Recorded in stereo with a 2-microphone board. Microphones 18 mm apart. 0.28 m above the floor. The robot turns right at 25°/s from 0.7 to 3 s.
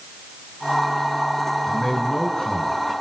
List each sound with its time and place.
1.7 s a man speaking: 30° left (ahead or behind), 3.5 m; by 2.8 s 50° left (ahead or behind), 3.5 m